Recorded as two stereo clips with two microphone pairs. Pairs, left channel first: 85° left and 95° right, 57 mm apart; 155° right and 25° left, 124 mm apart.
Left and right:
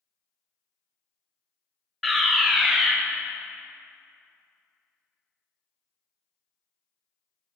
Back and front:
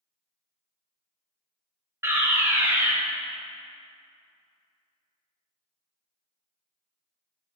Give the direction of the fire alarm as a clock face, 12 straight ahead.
12 o'clock.